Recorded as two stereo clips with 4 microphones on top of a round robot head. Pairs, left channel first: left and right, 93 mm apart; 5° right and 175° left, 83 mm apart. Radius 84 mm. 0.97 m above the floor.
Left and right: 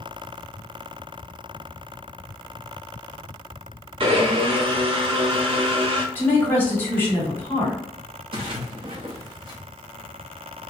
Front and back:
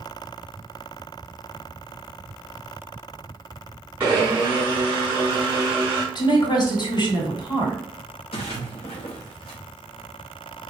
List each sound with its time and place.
4.0 s a blender: 110° right, 0.7 m
6.2 s a woman speaking: 25° left, 1.5 m
8.3 s a splash: 40° right, 0.5 m